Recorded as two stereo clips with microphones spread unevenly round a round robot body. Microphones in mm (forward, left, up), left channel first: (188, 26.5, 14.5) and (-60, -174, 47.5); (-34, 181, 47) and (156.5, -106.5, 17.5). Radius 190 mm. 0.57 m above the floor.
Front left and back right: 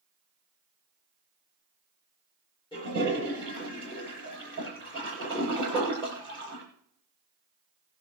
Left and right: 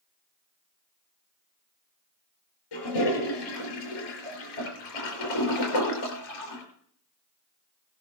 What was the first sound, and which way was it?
A toilet flushing, 115° left.